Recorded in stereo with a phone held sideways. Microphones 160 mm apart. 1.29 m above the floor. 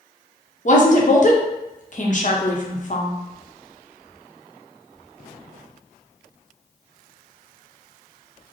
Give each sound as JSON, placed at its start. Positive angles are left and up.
{"t": 0.7, "sound": "a woman speaking", "side_deg": 50, "distance_m": 0.8}